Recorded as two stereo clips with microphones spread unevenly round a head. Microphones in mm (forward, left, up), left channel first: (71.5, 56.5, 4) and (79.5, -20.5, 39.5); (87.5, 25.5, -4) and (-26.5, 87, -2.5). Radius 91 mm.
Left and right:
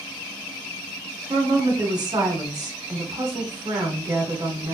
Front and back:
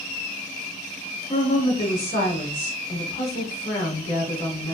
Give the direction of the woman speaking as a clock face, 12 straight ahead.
2 o'clock.